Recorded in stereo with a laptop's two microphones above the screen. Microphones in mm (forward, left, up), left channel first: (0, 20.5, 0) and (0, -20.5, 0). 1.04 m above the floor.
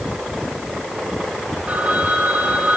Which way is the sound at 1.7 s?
40° right (ahead or behind).